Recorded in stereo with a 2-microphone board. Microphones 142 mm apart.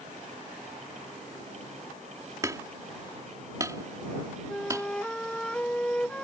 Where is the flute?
5° left (ahead or behind).